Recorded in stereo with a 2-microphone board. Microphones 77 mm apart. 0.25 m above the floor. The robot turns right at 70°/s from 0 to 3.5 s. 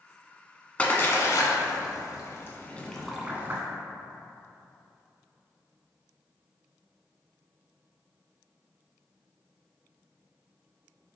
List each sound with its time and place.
0.8 s a splash: 20° left (ahead or behind), 0.7 m; by 3.6 s 30° right (ahead or behind), 0.7 m